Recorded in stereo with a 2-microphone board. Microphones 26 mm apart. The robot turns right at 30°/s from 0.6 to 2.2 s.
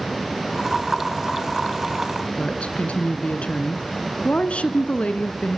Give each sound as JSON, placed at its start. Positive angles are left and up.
{"t": 2.4, "sound": "a woman speaking", "side_deg": 55, "distance_m": 1.8}